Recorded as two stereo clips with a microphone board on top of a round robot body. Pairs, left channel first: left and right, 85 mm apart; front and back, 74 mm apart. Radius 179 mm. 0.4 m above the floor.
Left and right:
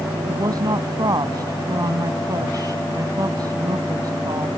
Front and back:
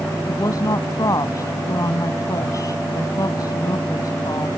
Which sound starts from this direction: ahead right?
A woman speaking, at 0.3 s.